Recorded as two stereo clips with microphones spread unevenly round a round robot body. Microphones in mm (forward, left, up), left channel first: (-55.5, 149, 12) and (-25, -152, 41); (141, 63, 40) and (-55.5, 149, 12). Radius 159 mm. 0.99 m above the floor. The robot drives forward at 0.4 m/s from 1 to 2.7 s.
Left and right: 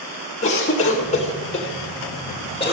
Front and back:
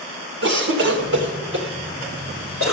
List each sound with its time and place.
0.4 s a cough: 155° left, 1.4 m; by 2.7 s 165° left, 2.0 m